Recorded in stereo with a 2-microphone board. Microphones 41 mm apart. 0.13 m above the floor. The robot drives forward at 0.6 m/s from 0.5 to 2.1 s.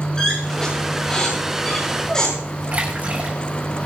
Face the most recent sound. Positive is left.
turn(degrees=-35)  # may be behind; listen again after turning